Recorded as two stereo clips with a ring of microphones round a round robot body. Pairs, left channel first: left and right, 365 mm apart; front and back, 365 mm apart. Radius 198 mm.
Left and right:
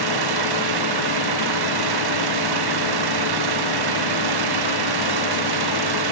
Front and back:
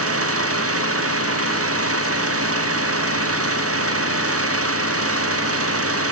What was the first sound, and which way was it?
An engine running, 130° right.